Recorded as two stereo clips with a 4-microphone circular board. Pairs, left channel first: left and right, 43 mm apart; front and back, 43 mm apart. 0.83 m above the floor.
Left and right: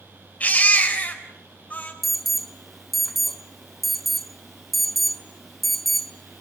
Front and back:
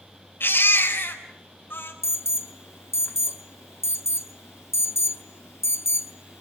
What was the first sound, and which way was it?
A baby crying, 35° left.